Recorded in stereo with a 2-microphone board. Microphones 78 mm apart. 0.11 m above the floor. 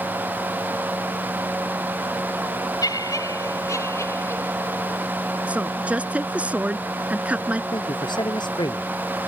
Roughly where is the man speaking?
Left.